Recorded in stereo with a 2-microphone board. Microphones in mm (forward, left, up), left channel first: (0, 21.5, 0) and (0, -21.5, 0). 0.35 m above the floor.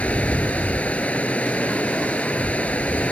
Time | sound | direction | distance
0.0 | running water | 35° left (ahead or behind) | ?